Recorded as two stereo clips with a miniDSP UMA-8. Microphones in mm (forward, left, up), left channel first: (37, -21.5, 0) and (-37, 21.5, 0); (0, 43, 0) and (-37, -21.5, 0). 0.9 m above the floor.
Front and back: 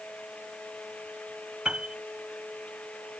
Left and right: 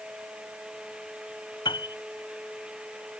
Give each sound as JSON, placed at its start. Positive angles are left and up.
{"t": 1.6, "sound": "a piano", "azimuth_deg": 70}